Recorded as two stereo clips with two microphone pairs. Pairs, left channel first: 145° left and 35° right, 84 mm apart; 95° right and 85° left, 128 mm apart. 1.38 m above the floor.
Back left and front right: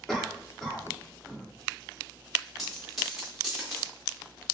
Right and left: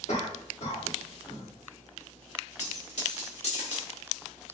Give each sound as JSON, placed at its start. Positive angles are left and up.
{"t": 0.1, "sound": "a cough", "azimuth_deg": -130, "distance_m": 1.9}
{"t": 2.6, "sound": "a dropped coin", "azimuth_deg": -125, "distance_m": 1.9}